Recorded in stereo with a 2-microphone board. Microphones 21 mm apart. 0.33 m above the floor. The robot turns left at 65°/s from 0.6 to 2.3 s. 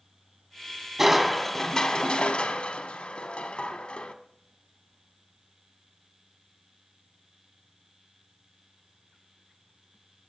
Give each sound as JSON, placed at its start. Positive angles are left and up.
{"t": 1.0, "sound": "crushing", "azimuth_deg": -160, "distance_m": 0.8}